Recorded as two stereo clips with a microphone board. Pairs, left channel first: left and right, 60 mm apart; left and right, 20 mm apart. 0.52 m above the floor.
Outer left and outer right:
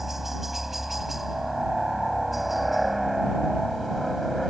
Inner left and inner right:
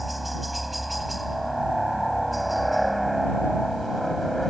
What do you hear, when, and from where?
0.0 s a helicopter: 5° right (ahead or behind); by 4.5 s centre (ahead or behind)